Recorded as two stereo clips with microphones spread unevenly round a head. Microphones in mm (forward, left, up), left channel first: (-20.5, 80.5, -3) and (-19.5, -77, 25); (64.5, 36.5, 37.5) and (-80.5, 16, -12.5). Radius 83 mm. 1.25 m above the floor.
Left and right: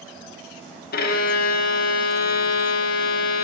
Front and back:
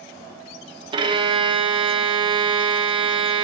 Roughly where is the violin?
Behind left.